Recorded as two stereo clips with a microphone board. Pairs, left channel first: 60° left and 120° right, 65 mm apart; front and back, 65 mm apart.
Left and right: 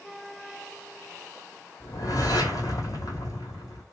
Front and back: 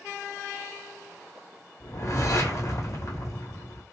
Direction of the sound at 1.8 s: 30° left.